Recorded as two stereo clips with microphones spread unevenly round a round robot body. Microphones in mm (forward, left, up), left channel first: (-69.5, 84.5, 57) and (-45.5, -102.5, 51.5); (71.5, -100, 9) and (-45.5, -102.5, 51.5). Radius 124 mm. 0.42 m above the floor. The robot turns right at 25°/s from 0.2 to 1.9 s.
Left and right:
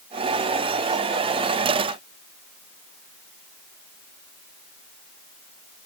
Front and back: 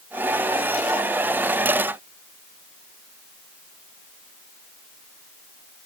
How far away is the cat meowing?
I don't hear a cat meowing.